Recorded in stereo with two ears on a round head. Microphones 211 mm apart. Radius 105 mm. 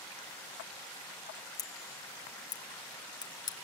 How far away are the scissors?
About 1.6 m.